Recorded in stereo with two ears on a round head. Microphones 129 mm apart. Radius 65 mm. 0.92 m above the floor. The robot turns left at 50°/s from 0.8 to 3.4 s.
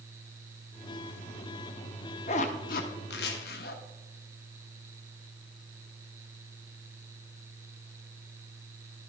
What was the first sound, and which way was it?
A zipper, 45° left (ahead or behind).